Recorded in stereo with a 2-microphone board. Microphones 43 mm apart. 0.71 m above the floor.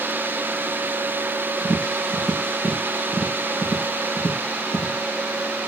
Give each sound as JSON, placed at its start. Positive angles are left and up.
{"t": 1.6, "sound": "tapping", "side_deg": 85, "distance_m": 4.0}